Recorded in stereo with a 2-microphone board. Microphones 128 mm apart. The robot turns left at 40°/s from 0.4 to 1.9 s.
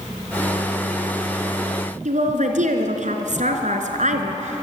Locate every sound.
2.0 s a woman speaking: 65° right (ahead or behind), 3 m